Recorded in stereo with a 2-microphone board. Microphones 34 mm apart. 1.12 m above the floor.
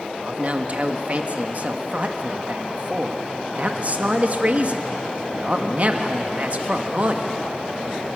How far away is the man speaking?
About 1.4 m.